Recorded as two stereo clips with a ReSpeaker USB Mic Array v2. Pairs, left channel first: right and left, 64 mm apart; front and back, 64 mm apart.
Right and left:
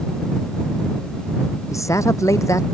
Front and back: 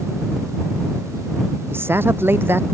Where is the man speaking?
125° right.